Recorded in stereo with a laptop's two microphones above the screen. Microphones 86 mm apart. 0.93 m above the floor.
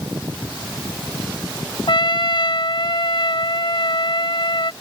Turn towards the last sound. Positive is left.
turn(degrees=60)  # may be behind; listen again after turning